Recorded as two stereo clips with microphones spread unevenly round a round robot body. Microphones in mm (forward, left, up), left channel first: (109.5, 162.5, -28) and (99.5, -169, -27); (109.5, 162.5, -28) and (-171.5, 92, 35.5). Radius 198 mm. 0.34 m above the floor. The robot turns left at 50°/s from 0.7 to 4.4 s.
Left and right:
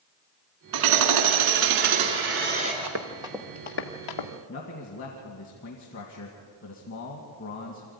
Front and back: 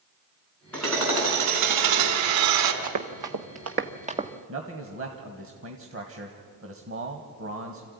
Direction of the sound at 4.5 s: 150° left.